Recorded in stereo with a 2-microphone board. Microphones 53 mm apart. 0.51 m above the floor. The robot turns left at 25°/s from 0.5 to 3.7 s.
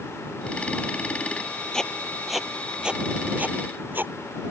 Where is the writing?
15° left (ahead or behind); by 4.1 s 35° right (ahead or behind).